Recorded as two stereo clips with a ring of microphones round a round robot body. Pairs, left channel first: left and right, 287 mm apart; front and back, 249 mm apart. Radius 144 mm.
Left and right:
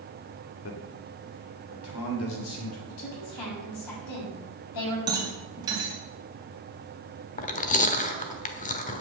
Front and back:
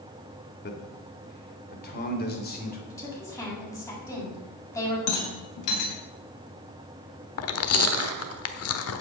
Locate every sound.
0.6 s a man speaking: 45° left, 2.5 m; by 2.8 s 50° left, 4 m
2.9 s a woman speaking: 80° left, 7 m
5.1 s a rattle: 15° right, 3 m
7.4 s chewing: 25° left, 1.1 m